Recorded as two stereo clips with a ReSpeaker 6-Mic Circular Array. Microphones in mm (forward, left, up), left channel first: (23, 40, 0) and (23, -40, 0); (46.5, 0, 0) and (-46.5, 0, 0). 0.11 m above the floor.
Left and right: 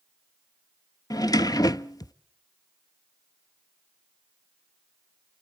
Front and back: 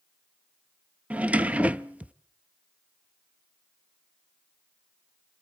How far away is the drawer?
About 0.6 m.